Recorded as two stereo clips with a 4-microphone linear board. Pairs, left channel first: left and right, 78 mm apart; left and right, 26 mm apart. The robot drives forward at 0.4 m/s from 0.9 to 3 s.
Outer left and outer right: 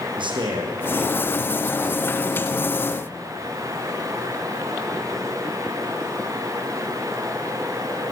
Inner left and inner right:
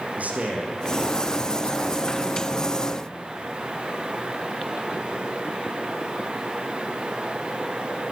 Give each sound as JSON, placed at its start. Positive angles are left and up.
{"t": 0.2, "sound": "a man speaking", "side_deg": -75, "distance_m": 6.0}